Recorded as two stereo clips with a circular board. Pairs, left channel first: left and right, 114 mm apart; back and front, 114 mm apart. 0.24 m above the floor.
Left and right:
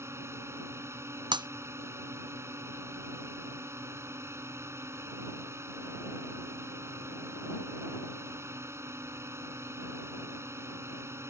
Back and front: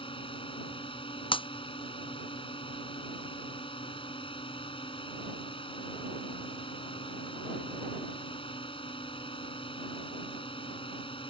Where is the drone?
155° right.